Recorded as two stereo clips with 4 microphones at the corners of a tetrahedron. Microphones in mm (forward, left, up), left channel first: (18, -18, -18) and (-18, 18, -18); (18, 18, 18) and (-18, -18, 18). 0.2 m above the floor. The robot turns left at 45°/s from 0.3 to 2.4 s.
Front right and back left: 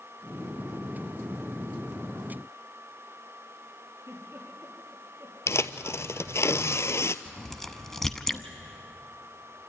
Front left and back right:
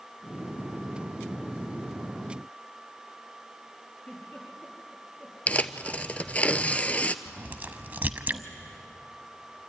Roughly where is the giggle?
Left.